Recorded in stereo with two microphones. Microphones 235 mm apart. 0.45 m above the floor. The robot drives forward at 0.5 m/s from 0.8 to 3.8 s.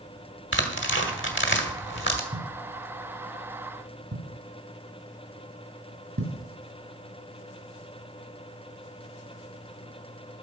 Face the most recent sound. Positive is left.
turn(degrees=-60)  # may be behind; listen again after turning